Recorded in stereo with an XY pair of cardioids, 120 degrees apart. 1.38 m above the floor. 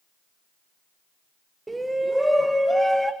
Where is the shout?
15° right, 0.9 m; by 3.1 s 5° left, 1.7 m.